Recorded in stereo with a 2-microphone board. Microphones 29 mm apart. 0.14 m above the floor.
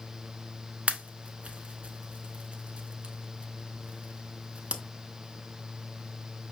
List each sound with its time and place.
0.9 s a pop: 45° right (ahead or behind), 0.5 m